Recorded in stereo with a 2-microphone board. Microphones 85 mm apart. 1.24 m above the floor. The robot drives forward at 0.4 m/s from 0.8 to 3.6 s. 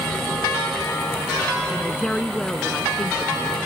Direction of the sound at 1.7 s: 10° left (ahead or behind).